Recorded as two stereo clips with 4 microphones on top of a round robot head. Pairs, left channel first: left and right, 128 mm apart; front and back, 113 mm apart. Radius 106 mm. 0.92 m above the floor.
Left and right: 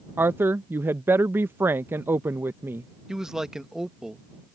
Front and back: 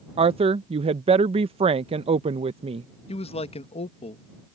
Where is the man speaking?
5° right.